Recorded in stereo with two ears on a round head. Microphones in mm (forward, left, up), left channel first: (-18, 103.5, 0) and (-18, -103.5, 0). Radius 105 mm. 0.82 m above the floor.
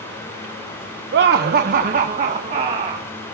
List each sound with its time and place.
1.1 s laughter: 55° right (ahead or behind), 0.9 m; by 3.1 s 25° right (ahead or behind), 1.9 m